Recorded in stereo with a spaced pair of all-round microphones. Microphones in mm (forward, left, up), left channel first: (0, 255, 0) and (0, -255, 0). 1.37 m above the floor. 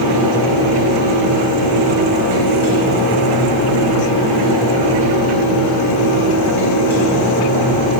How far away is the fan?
About 2.5 m.